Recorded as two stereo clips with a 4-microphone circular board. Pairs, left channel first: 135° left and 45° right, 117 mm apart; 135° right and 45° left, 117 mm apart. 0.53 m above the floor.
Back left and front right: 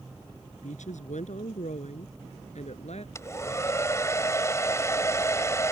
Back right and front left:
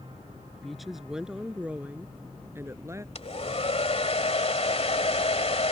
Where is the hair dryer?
160° right.